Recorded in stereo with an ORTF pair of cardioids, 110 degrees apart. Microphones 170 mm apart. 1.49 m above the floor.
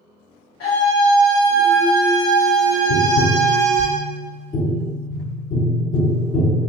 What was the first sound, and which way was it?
A scream, 65° left.